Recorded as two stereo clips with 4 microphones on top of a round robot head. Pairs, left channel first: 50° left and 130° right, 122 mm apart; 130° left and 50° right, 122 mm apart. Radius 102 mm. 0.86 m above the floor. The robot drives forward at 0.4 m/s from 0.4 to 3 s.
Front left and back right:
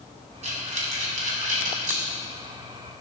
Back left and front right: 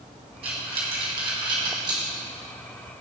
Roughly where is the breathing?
Right.